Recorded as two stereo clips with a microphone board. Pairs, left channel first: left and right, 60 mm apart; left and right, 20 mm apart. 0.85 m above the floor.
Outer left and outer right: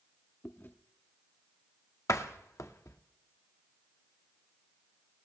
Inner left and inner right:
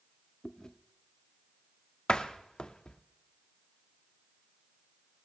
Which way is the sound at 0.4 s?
35° left (ahead or behind).